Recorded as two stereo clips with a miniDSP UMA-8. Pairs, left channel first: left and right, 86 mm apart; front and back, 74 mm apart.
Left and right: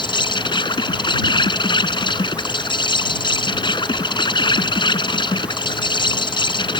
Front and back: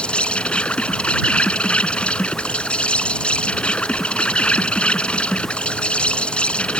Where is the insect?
75° left.